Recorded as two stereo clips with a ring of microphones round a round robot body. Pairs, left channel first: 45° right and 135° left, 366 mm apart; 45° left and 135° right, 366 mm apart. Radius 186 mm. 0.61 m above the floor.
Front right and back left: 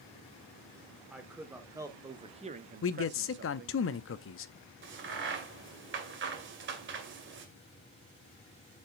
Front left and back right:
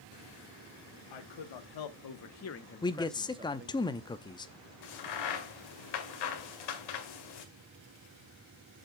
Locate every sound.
1.1 s a man speaking: 45° left, 1.8 m; by 3.8 s 175° right, 1.0 m
2.8 s a man speaking: 25° right, 0.6 m
4.8 s a crack: 75° left, 2 m